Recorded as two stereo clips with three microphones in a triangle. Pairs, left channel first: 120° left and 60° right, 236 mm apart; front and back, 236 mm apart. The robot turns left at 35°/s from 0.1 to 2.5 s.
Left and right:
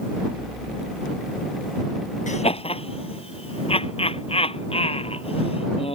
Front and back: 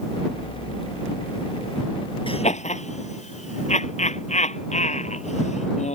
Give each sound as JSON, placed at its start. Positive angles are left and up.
{"t": 2.3, "sound": "laughter", "azimuth_deg": 65}